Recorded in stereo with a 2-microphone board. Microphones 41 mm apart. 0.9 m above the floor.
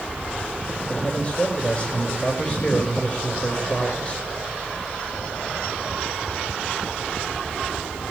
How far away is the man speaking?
About 4.5 m.